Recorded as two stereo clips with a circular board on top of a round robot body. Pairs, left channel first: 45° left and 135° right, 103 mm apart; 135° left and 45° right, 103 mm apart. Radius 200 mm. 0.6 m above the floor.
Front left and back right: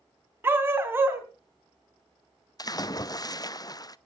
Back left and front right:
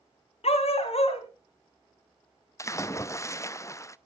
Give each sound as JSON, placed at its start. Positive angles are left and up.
{"t": 0.4, "sound": "a dog barking", "azimuth_deg": 155, "distance_m": 3.0}
{"t": 2.6, "sound": "a splash", "azimuth_deg": 85, "distance_m": 1.0}